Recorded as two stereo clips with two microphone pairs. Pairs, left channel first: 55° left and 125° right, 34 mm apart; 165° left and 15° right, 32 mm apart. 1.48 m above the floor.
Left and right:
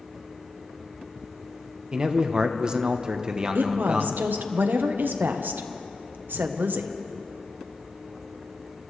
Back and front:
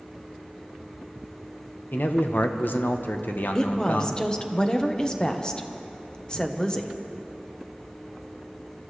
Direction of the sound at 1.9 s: 175° left.